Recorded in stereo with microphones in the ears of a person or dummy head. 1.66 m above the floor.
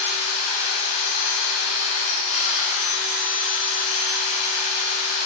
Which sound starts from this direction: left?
A machine running, at 0.0 s.